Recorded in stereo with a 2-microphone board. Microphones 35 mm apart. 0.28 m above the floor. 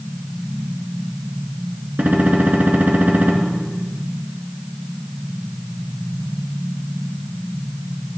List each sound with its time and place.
2.0 s a gunshot: 70° right (ahead or behind), 2.5 m